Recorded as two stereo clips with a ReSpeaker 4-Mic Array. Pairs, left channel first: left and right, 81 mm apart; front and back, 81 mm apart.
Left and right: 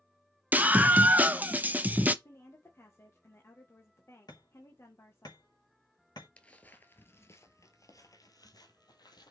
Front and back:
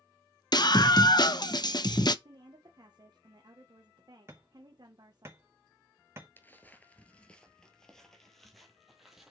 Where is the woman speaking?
150° left, 1.4 m.